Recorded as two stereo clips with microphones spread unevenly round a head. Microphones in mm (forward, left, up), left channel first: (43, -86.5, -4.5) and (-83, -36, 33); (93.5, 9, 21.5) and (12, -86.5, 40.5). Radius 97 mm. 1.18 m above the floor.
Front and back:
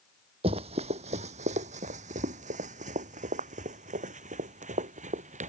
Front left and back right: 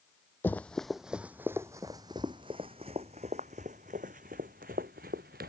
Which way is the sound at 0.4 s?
135° left.